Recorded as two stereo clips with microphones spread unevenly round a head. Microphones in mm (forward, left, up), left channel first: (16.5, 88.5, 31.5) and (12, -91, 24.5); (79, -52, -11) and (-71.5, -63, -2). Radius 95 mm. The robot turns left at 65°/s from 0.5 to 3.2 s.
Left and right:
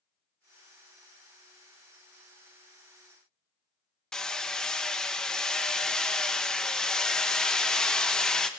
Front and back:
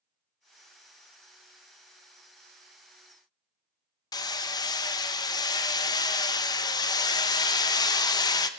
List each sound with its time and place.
4.1 s hammering: 15° left, 0.8 m